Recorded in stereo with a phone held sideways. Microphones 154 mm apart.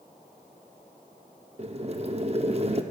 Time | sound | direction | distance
1.6 | boiling | 45° right (ahead or behind) | 0.7 m